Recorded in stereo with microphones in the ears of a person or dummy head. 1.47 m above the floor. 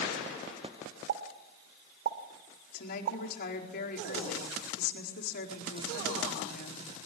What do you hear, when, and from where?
1.1 s a pop: 55° right (ahead or behind), 2 m
2.7 s a woman speaking: 55° left (ahead or behind), 4.5 m